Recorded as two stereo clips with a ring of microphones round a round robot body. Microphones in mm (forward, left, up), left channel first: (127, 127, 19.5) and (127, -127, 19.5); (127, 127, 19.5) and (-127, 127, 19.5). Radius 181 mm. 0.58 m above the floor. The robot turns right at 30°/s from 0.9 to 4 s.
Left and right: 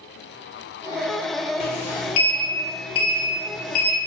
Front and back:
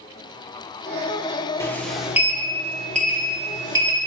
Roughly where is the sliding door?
Left.